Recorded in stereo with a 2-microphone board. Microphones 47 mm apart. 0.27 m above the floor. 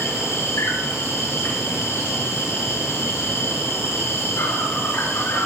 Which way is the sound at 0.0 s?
65° left (ahead or behind).